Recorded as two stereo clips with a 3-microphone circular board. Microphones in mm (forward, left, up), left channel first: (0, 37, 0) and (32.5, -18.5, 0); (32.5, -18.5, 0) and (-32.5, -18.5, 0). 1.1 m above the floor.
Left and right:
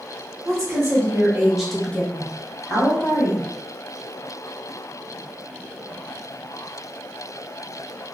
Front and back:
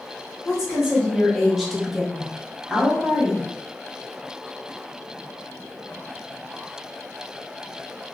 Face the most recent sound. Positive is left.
turn(degrees=105)